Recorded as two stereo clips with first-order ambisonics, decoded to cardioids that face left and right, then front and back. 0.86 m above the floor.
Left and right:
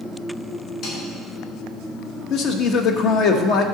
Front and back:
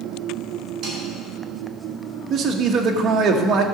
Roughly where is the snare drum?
Behind left.